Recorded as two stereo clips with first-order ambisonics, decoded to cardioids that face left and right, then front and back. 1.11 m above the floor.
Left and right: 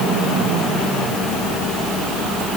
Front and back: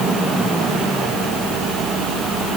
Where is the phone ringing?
No phone ringing in this recording.